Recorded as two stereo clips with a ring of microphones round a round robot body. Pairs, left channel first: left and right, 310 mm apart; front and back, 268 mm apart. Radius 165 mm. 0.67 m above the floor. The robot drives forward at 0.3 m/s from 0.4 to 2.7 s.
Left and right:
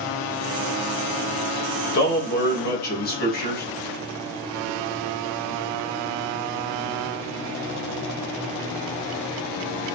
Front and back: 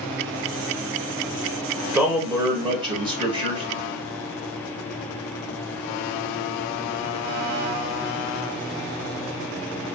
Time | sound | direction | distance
1.9 | a man speaking | 100° left | 1.2 m